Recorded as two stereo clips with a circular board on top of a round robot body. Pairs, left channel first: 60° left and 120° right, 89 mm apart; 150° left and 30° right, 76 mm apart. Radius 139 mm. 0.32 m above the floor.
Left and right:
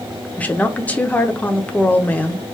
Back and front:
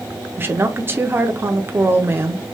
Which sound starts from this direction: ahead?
A woman speaking, at 0.4 s.